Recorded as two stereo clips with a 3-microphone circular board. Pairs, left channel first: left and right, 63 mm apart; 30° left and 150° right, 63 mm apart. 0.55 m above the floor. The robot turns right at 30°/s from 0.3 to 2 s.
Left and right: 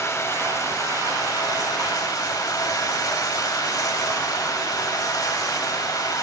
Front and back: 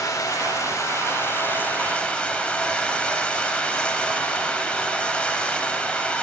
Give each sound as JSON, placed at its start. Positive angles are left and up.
{"t": 0.0, "sound": "running water", "azimuth_deg": 50, "distance_m": 1.2}